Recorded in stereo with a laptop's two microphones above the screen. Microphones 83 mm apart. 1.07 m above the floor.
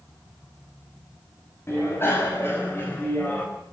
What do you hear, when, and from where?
1.7 s a bicycle bell: 30° left (ahead or behind), 4.5 m; by 3.5 s 20° left (ahead or behind), 3.5 m